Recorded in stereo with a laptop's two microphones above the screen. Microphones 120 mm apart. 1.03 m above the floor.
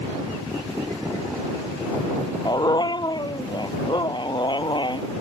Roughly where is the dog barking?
Left.